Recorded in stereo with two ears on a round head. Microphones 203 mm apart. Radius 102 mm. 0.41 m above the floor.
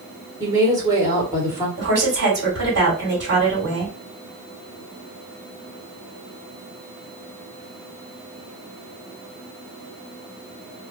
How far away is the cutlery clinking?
I don't hear cutlery clinking.